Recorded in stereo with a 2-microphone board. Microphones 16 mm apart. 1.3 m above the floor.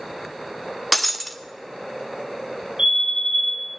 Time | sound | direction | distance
0.9 | breaking glass | 10° left (ahead or behind) | 0.6 m
2.8 | a fire alarm | 80° right | 7 m